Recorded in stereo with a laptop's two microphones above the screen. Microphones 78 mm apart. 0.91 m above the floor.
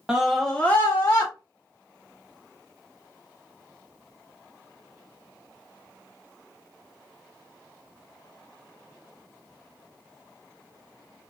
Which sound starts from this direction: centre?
A scream, at 0.1 s.